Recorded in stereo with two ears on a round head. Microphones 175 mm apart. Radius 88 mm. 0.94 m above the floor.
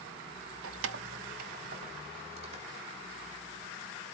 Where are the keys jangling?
85° right, 0.7 m; by 3.0 s 30° right (ahead or behind), 3 m.